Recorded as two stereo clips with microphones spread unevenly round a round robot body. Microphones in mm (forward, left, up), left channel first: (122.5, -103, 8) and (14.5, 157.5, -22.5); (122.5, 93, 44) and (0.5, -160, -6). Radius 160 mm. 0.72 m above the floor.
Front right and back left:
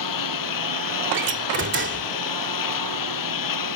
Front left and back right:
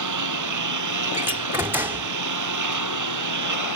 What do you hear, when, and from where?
0.0 s a lawn mower: 100° right
1.1 s a door slam: 165° left